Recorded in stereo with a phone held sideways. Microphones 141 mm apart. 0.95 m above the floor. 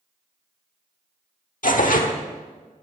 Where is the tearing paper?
70° left (ahead or behind), 1.2 m.